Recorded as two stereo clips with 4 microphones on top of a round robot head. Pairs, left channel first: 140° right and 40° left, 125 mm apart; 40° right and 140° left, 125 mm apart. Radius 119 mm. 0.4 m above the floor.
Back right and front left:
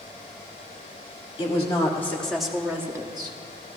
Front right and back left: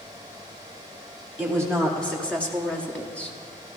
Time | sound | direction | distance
1.4 | a woman speaking | 115° right | 1.6 m